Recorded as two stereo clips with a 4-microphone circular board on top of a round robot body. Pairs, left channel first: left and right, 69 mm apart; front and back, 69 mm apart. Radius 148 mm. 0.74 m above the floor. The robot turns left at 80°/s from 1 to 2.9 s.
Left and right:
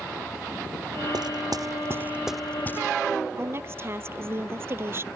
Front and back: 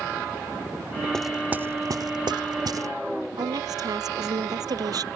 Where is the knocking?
85° right; by 2.9 s 135° left.